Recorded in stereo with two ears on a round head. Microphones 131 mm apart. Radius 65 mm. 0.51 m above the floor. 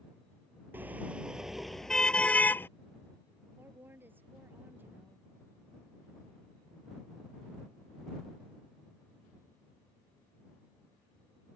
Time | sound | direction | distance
0.7 | a car horn | 15° right (ahead or behind) | ?
3.6 | a woman speaking | 15° right (ahead or behind) | ?